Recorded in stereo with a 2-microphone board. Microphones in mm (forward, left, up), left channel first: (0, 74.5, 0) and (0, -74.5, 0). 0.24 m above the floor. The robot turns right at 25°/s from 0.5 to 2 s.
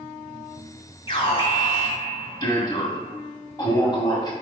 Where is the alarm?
35° left (ahead or behind), 1.9 m; by 4.3 s 25° left (ahead or behind), 1.9 m.